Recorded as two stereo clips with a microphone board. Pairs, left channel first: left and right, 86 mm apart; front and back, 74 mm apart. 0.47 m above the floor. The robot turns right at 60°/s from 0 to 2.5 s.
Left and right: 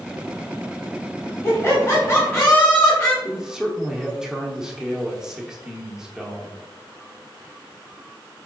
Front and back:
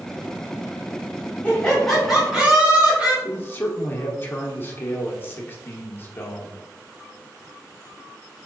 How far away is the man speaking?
About 0.8 m.